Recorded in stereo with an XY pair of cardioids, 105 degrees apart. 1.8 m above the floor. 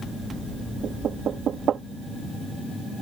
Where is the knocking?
55° right.